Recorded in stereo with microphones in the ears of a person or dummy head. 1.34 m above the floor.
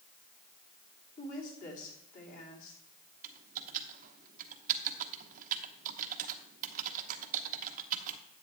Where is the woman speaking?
40° left (ahead or behind), 3 m.